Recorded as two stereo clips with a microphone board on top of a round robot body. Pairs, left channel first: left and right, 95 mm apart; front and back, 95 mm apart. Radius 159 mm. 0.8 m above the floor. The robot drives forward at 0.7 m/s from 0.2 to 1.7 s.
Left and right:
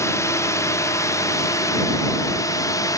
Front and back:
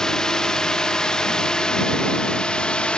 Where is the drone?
75° left.